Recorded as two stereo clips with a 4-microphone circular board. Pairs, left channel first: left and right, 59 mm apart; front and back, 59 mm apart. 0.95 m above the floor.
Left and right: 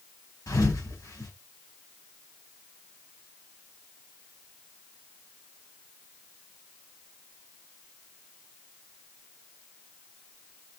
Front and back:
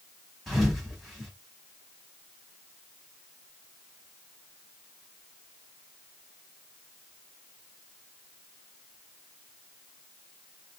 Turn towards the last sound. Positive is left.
turn(degrees=90)